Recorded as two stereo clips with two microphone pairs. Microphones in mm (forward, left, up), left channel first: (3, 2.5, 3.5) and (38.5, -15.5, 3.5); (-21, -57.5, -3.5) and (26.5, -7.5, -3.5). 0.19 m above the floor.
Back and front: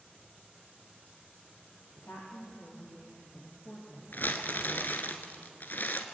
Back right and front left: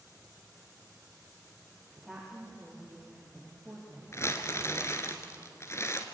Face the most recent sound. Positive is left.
turn(degrees=180)